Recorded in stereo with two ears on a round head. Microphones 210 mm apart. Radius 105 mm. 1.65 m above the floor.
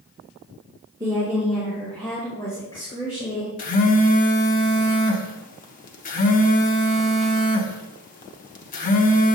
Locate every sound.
1.0 s a woman speaking: 15° right (ahead or behind), 1.7 m; by 3.5 s 25° left (ahead or behind), 3 m
3.6 s a phone buzzing: 35° left (ahead or behind), 0.9 m